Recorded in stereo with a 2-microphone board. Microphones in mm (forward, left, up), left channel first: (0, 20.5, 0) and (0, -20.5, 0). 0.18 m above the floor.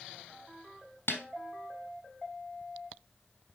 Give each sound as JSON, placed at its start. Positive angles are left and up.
{"t": 1.1, "sound": "a snare drum", "side_deg": 65, "distance_m": 3.0}